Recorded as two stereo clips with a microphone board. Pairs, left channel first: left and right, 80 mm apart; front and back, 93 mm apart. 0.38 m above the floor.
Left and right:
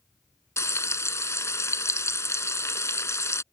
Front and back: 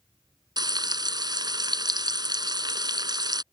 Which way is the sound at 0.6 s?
140° left.